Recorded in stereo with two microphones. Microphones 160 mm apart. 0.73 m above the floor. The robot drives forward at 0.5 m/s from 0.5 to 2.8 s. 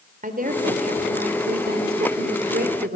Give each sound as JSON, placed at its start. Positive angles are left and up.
{"t": 0.2, "sound": "a woman speaking", "side_deg": -55, "distance_m": 2.5}